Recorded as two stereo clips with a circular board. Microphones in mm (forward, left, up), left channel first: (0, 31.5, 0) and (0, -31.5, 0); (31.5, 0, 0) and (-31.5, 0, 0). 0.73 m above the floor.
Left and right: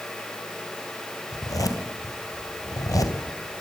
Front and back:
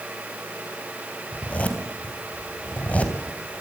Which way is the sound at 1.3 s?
65° left.